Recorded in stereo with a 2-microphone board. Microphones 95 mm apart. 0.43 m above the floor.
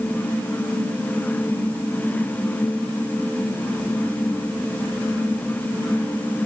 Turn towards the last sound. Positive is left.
No sound to turn to.